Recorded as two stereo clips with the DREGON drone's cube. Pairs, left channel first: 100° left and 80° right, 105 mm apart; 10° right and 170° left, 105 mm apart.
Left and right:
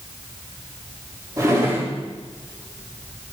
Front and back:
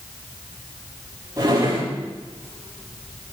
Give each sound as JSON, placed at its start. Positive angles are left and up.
{"t": 1.4, "sound": "a drawer", "azimuth_deg": -135, "distance_m": 6.5}